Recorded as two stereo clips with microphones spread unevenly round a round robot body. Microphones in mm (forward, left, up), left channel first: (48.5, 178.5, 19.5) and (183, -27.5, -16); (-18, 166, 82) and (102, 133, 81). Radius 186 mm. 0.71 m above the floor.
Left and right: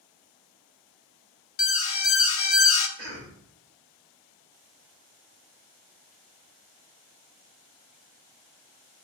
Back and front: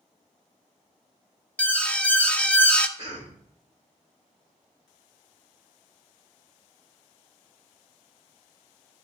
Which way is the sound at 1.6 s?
85° left.